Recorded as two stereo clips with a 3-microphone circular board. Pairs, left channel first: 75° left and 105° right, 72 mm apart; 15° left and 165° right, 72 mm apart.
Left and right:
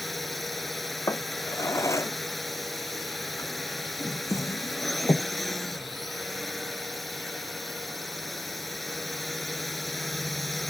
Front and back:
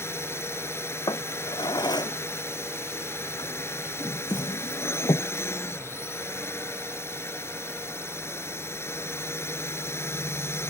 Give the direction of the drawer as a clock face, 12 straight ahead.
11 o'clock.